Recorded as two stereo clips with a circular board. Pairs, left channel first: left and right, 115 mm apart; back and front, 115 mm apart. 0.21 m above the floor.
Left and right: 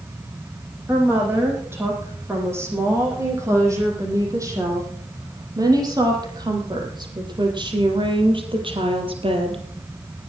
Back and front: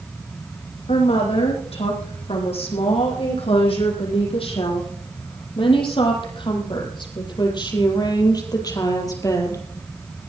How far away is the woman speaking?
About 9 m.